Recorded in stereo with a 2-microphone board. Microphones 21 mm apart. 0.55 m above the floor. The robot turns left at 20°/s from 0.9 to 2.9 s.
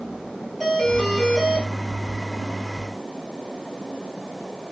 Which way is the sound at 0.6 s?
10° left (ahead or behind).